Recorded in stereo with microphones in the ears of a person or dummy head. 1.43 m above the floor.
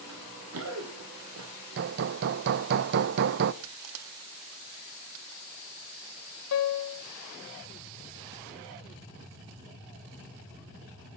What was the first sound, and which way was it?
Running footsteps, 75° right (ahead or behind).